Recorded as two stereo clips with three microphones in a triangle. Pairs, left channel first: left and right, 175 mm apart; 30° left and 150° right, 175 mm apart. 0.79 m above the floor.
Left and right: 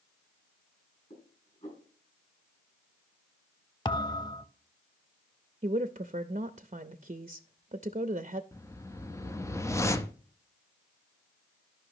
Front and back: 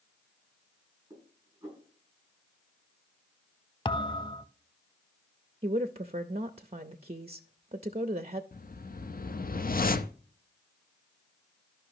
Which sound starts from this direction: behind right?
A woman speaking, at 5.6 s.